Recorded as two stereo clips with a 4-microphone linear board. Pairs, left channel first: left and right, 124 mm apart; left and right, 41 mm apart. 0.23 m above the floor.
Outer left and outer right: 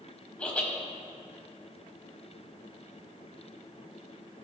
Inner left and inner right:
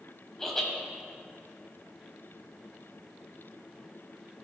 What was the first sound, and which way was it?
Laughter, 10° left (ahead or behind).